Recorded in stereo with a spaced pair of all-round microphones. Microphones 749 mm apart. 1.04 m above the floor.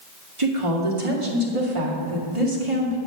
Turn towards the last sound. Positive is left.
turn(degrees=-40)  # may be behind; listen again after turning